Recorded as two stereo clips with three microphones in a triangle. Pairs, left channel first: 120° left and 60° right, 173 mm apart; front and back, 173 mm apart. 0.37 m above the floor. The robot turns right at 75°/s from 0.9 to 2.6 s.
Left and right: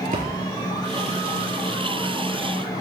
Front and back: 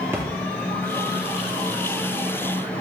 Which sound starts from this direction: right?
A splash, at 0.1 s.